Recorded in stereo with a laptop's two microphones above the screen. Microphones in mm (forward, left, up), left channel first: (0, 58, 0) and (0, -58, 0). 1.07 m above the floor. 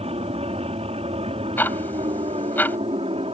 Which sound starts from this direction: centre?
Ticking, at 1.6 s.